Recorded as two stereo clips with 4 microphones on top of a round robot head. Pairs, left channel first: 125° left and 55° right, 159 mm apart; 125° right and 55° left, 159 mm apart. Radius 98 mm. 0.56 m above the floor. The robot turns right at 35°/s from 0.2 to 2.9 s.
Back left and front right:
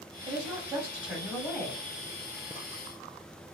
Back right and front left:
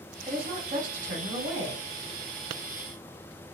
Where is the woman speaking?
Straight ahead, 2.0 m; by 1.8 s 55° left, 2.0 m.